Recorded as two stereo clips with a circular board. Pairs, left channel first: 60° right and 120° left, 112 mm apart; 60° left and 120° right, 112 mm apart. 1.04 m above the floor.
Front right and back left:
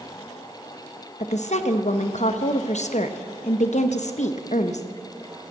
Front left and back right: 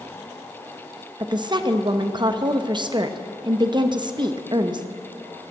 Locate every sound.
1.2 s a woman speaking: 70° right, 0.8 m